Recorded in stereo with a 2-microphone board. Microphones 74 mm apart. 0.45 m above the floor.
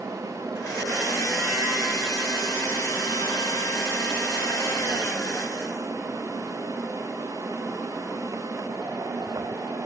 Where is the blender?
40° left (ahead or behind), 1.6 m.